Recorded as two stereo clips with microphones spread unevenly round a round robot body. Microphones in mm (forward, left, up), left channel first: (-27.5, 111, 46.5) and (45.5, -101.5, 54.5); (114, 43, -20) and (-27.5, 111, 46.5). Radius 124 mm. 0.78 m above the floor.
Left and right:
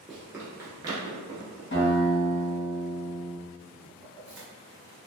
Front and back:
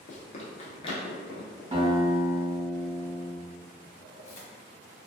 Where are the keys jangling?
15° left, 1.3 m.